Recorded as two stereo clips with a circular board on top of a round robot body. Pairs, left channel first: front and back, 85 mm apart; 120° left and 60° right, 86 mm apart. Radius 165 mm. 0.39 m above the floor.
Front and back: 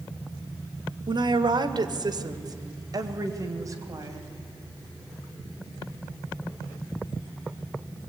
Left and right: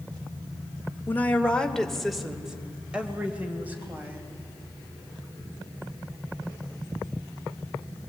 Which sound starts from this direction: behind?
A woman speaking, at 1.1 s.